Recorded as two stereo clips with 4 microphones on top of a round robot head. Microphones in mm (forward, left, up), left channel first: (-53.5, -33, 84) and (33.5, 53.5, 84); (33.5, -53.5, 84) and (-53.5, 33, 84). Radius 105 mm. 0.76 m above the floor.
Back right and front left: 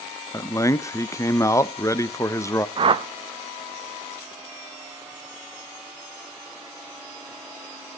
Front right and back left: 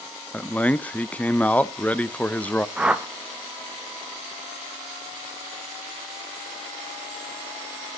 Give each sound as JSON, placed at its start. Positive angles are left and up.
{"t": 0.3, "sound": "a man speaking", "azimuth_deg": -110, "distance_m": 0.5}
{"t": 2.8, "sound": "a whoosh", "azimuth_deg": 55, "distance_m": 0.8}